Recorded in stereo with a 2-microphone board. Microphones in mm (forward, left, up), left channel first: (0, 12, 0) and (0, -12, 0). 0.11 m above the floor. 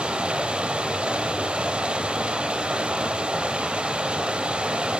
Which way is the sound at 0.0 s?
50° right (ahead or behind).